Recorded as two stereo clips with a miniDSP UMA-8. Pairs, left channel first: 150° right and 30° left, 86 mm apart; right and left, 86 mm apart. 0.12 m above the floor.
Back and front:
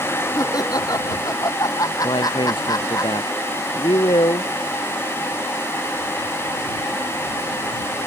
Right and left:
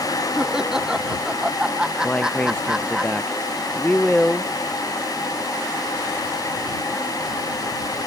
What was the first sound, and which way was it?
Laughter, 170° left.